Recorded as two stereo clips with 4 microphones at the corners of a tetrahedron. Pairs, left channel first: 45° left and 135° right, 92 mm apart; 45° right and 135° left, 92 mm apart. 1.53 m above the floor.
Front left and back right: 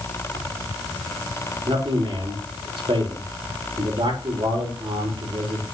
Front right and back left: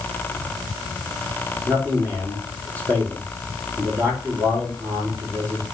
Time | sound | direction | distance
1.7 | a man speaking | 160° right | 5.5 m